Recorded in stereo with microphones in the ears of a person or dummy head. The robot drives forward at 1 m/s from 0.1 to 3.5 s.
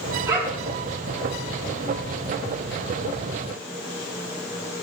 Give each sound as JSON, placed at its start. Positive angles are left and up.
{"t": 0.3, "sound": "a dog barking", "side_deg": -20, "distance_m": 4.5}